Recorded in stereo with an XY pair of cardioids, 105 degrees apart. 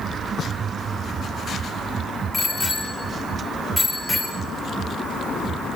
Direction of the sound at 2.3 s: 25° left.